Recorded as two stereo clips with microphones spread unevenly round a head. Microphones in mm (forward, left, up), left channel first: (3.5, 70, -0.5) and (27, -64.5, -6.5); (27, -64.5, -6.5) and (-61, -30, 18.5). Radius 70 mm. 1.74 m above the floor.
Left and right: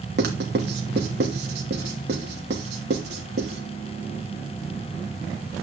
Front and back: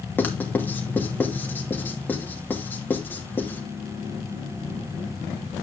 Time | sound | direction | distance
0.2 | writing | 95° right | 2.5 m